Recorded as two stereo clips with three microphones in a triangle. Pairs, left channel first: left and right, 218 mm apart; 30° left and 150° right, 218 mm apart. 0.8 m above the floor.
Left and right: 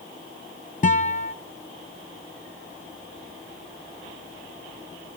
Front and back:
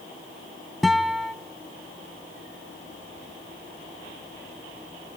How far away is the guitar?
About 0.8 m.